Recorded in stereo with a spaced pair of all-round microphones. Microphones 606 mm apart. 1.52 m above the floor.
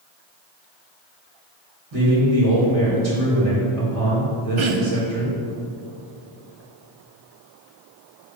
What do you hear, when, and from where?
1.9 s a man speaking: 65° right (ahead or behind), 2.0 m
4.6 s throat clearing: 55° right (ahead or behind), 0.6 m